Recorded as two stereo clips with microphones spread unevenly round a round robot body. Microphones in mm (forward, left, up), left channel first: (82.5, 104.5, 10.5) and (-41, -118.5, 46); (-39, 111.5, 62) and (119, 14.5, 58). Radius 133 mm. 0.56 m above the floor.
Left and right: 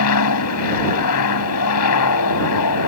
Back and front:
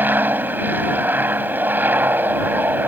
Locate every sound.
0.0 s an aircraft: 50° left